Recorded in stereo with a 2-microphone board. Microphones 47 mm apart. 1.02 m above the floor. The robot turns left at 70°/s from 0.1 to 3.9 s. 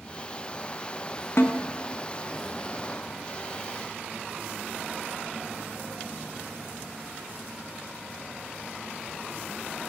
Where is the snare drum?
65° left (ahead or behind), 0.9 m; by 1.6 s 75° left (ahead or behind), 0.9 m.